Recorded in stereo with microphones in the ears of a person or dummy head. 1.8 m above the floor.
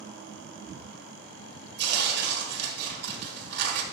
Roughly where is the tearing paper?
Right.